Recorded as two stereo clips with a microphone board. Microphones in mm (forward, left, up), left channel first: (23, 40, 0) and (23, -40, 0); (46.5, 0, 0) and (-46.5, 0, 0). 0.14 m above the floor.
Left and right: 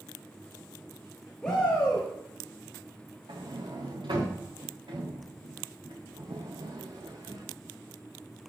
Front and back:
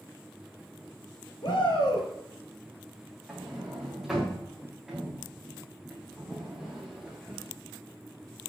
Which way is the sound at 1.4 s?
10° left.